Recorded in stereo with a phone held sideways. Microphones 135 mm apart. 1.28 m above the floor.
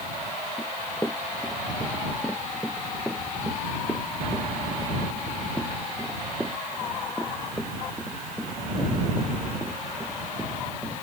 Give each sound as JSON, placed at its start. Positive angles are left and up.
{"t": 0.6, "sound": "running footsteps", "side_deg": 20}